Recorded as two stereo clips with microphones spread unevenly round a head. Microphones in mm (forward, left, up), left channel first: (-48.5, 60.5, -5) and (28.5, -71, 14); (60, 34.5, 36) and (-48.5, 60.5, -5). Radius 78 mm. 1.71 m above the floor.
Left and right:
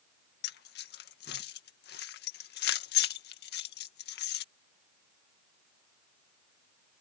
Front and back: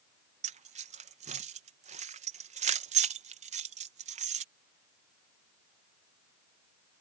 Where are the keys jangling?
140° left.